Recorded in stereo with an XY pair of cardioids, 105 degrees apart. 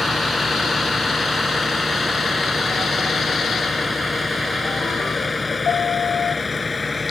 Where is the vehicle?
20° left; by 7.1 s 25° left.